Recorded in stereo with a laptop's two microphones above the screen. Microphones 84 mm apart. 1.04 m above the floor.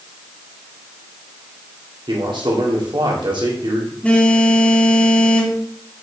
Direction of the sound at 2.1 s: 75° right (ahead or behind).